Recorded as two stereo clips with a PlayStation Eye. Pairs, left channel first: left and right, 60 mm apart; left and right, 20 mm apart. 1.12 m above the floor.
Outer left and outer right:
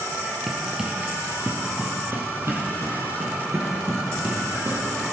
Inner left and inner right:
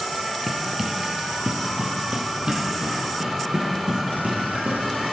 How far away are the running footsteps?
About 1.1 m.